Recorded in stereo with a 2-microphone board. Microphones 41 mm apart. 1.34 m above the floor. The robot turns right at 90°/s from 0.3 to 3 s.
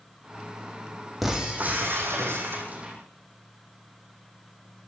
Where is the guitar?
I don't hear a guitar.